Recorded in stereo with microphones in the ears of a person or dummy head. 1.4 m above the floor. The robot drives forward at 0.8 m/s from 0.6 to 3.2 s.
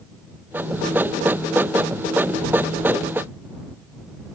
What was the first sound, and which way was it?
Only background noise.